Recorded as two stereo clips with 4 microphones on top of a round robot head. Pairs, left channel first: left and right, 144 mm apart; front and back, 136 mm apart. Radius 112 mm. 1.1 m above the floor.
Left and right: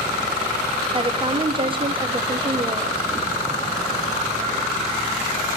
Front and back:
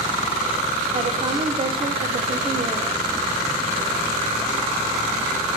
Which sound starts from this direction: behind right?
A woman speaking, at 0.9 s.